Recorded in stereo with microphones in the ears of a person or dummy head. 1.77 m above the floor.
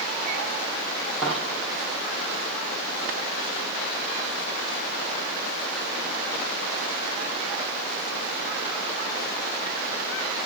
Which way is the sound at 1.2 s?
5° left (ahead or behind).